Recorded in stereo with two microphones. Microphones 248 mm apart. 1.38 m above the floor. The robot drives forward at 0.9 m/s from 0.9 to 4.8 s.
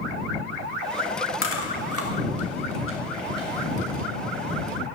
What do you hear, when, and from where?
1.4 s chewing: 55° left (ahead or behind), 1.4 m; by 4.1 s 35° left (ahead or behind), 2 m